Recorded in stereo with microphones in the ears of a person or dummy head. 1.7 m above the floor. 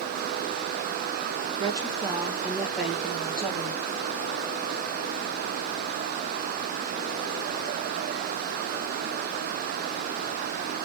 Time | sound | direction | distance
1.6 | a woman speaking | 25° right (ahead or behind) | 2 m